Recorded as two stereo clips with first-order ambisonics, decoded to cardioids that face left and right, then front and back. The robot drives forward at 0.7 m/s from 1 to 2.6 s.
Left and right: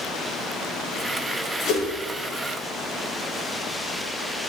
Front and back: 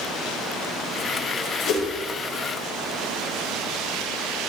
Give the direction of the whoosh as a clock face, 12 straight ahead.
11 o'clock.